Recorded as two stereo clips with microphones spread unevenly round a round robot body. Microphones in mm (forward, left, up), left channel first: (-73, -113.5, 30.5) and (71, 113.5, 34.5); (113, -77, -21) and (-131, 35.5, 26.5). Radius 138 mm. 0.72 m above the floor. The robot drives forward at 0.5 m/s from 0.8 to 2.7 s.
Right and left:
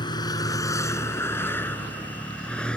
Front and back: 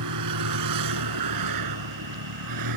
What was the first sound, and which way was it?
A vehicle, 165° left.